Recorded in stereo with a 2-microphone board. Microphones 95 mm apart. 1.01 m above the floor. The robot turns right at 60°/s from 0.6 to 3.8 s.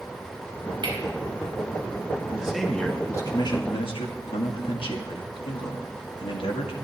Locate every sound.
0.8 s cutlery clinking: 55° right (ahead or behind), 3.5 m; by 1.0 s 65° right (ahead or behind), 3.5 m
2.3 s a man speaking: 15° right, 1.6 m; by 6.7 s 75° left, 1.6 m